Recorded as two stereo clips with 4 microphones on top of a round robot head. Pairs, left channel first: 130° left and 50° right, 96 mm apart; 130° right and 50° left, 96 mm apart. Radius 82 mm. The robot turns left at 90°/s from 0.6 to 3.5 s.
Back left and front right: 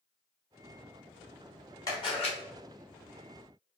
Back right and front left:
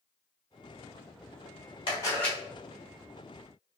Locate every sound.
1.9 s a camera shutter: 175° right, 1.1 m; by 2.4 s 145° left, 1.1 m